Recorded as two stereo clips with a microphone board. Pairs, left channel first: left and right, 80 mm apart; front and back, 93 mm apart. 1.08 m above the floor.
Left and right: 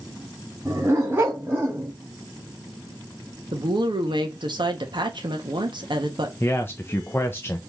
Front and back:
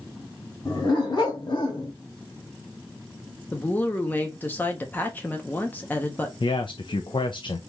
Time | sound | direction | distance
0.7 | a dog barking | 35° right | 2.5 m
3.5 | a woman speaking | 70° right | 1.1 m
6.4 | a man speaking | 30° left | 0.6 m